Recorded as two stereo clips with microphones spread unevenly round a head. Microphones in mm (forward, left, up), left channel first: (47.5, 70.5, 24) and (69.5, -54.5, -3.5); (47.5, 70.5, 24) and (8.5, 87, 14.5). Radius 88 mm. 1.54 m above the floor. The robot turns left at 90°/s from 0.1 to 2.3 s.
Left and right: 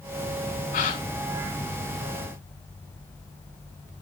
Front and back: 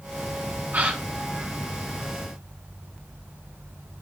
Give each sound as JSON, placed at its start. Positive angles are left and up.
{"t": 0.7, "sound": "a gasp", "azimuth_deg": 105, "distance_m": 4.0}